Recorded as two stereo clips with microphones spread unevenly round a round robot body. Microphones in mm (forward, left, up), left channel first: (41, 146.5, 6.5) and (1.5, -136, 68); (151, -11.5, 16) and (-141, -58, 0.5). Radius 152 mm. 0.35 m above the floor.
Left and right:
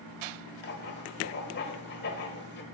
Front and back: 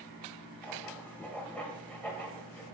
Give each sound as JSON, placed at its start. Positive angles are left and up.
{"t": 0.6, "sound": "writing", "azimuth_deg": 95, "distance_m": 1.3}